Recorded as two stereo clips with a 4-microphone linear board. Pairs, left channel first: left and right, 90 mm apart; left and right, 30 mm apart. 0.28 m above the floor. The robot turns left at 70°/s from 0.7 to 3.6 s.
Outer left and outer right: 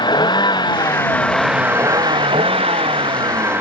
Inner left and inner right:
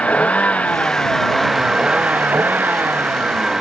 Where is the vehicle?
55° left (ahead or behind); by 3.6 s 20° right (ahead or behind).